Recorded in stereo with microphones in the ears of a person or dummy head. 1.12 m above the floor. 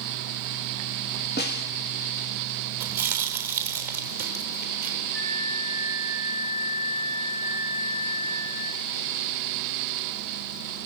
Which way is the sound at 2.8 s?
10° right (ahead or behind).